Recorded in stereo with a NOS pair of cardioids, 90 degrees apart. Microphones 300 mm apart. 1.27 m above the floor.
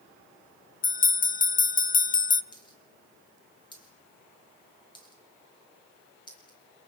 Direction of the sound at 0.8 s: 25° left.